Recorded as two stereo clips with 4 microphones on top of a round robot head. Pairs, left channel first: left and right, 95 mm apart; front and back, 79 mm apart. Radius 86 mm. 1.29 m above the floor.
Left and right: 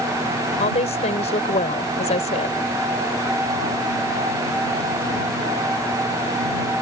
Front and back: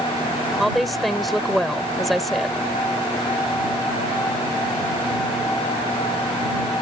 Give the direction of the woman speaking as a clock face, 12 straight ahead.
9 o'clock.